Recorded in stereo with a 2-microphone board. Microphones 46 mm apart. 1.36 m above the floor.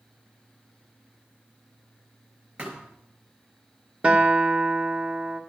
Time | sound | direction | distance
2.6 | a thud | 25° right (ahead or behind) | 4 m
4.0 | a guitar | 25° right (ahead or behind) | 1.3 m